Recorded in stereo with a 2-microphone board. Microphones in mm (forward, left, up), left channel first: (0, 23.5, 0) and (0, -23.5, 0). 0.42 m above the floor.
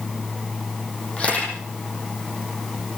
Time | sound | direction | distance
1.2 | a camera shutter | 25° left (ahead or behind) | 10 m